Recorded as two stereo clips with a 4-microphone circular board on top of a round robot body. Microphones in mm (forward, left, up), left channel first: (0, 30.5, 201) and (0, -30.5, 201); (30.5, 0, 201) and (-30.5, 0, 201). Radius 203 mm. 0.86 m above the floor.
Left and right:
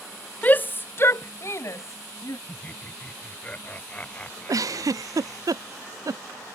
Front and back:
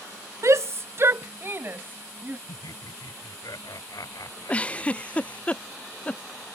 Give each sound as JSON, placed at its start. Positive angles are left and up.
{"t": 0.4, "sound": "a shout", "azimuth_deg": 150}
{"t": 2.5, "sound": "laughter", "azimuth_deg": 20}
{"t": 4.5, "sound": "a giggle", "azimuth_deg": -65}